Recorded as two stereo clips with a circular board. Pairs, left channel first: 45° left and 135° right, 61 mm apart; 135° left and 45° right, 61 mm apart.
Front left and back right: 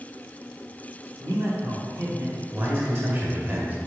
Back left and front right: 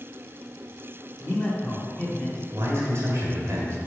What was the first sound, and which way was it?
A man speaking, 155° right.